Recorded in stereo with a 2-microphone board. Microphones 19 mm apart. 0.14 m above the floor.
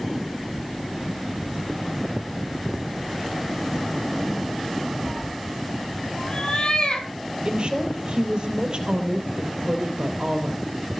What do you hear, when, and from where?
5.0 s a cat meowing: 5° right (ahead or behind), 1.4 m; by 7.1 s 65° left (ahead or behind), 2.5 m
7.5 s a woman speaking: 55° right (ahead or behind), 3.5 m